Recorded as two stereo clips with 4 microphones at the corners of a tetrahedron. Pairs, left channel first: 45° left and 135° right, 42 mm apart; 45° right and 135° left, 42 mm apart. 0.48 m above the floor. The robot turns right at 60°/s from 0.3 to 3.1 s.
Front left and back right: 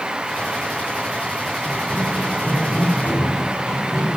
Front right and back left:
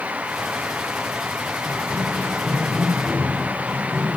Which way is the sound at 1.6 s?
35° right.